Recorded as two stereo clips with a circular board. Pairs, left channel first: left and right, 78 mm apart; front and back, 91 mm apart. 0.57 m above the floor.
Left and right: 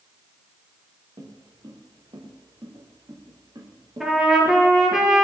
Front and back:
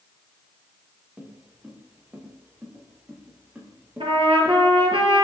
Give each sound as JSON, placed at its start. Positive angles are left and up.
{"t": 1.2, "sound": "footsteps", "azimuth_deg": -110, "distance_m": 4.5}
{"t": 4.0, "sound": "a trumpet", "azimuth_deg": -175, "distance_m": 3.5}